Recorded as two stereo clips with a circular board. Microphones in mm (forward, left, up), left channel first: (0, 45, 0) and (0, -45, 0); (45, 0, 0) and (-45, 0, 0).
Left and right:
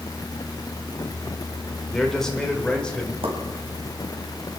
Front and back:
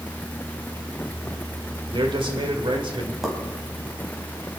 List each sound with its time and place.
1.9 s a man speaking: 175° left, 2.0 m; by 3.1 s 170° left, 2.5 m
3.2 s a pop: 95° right, 3 m